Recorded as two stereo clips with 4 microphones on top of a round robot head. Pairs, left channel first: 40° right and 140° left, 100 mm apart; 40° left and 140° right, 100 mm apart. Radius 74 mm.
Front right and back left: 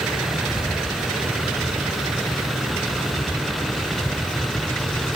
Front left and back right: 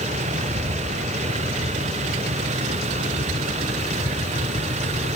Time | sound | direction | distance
0.0 | a vehicle | 130° right | ?